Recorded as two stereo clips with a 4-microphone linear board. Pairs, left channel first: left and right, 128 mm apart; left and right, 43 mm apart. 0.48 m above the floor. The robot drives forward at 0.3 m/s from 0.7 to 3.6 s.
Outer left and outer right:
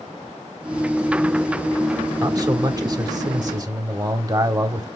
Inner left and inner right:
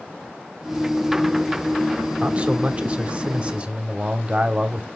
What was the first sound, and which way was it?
A man speaking, 30° right (ahead or behind).